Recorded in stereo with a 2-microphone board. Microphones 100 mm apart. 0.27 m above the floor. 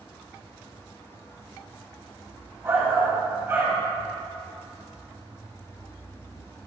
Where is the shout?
25° right (ahead or behind), 1.3 m.